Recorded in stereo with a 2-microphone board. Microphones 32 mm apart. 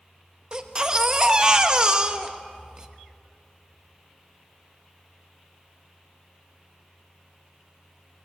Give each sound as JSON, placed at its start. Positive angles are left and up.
{"t": 0.5, "sound": "a baby crying", "side_deg": -25, "distance_m": 1.1}